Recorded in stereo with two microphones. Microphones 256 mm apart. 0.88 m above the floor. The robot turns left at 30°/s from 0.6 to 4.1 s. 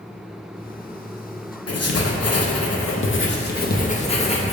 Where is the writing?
100° left, 0.5 m; by 4.5 s 25° left, 0.5 m.